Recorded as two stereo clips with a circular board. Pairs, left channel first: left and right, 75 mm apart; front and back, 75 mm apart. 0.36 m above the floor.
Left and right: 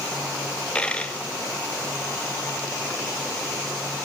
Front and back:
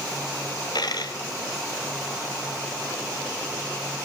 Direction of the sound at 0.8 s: 15° left.